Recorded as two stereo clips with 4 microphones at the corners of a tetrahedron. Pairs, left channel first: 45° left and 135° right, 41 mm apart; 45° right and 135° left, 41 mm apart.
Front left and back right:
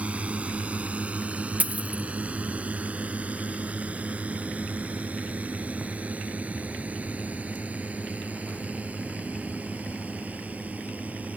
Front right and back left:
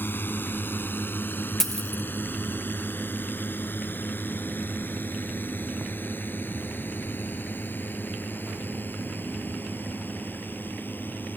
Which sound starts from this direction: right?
A drone, at 0.0 s.